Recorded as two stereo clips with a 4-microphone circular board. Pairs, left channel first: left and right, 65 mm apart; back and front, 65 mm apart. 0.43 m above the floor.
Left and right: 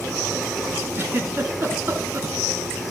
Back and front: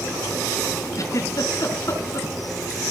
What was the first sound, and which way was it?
A giggle, 140° right.